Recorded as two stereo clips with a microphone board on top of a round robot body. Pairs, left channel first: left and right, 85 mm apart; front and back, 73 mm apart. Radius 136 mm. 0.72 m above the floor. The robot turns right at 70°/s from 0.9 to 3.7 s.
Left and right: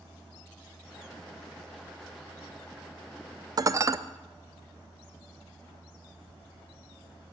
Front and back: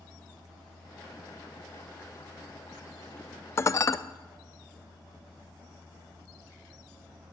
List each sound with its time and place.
3.6 s dishes clattering: 50° right, 0.5 m; by 4.0 s 40° right, 0.5 m